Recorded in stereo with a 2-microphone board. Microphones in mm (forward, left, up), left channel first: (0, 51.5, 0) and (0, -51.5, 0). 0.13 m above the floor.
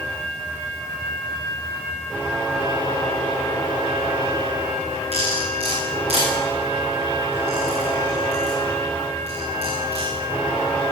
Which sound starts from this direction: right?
Cutlery clinking, at 5.1 s.